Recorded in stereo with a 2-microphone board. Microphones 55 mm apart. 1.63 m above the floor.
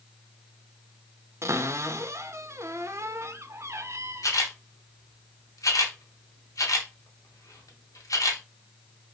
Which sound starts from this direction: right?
A cupboard door, at 1.4 s.